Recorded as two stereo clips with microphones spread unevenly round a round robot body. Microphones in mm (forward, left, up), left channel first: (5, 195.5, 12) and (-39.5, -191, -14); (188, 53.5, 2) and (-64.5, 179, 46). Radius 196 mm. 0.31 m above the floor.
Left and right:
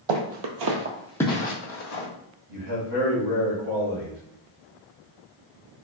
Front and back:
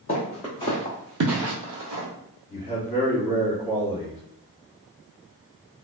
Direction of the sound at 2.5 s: 120° right.